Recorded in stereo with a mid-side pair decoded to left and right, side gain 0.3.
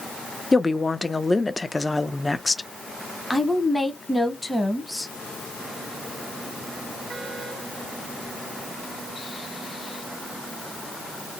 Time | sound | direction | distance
0.5 | a woman speaking | 30° left | 0.5 m
3.3 | a woman speaking | 15° left | 0.9 m